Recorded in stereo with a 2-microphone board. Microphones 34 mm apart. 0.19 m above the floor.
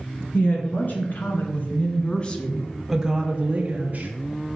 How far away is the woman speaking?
About 2.5 m.